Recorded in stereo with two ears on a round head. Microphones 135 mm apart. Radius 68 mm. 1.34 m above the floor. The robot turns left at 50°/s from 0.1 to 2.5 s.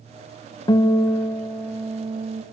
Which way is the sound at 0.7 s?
40° left.